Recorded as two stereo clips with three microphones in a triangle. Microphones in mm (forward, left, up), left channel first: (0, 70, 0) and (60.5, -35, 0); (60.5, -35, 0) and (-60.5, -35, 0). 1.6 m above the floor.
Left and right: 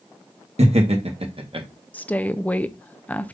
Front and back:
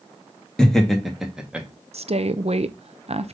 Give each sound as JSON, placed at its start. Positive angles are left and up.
{"t": 0.6, "sound": "laughter", "azimuth_deg": -85, "distance_m": 1.6}
{"t": 1.9, "sound": "a woman speaking", "azimuth_deg": -165, "distance_m": 0.6}